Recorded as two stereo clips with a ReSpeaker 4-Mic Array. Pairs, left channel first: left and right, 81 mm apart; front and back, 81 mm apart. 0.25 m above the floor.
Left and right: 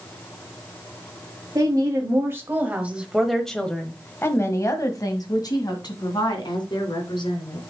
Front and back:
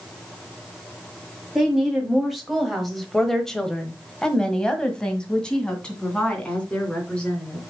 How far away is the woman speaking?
About 1.7 m.